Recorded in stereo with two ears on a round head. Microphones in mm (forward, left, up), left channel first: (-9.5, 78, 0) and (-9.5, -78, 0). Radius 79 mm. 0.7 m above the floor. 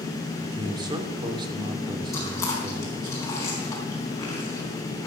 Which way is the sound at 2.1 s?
15° left (ahead or behind).